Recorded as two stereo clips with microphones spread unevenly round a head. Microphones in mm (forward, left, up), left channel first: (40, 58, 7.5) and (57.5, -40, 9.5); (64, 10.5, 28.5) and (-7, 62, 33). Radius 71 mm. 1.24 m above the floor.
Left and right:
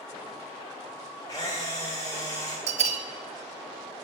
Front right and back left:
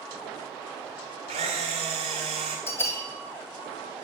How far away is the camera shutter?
About 2 m.